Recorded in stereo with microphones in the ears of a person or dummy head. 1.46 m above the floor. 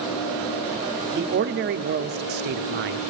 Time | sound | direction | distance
1.1 | a man speaking | 50° right (ahead or behind) | 0.5 m